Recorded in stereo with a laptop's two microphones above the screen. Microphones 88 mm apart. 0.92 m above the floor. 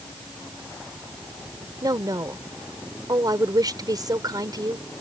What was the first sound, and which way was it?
A woman speaking, 50° right (ahead or behind).